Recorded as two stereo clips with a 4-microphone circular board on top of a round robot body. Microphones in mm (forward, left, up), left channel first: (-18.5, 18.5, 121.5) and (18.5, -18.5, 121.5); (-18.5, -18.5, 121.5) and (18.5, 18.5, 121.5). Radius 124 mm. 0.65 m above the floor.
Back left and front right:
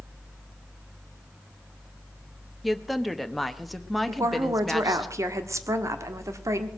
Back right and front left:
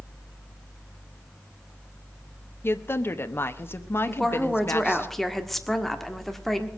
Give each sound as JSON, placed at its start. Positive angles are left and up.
{"t": 2.6, "sound": "a woman speaking", "azimuth_deg": -135, "distance_m": 1.3}
{"t": 4.1, "sound": "a woman speaking", "azimuth_deg": -50, "distance_m": 1.6}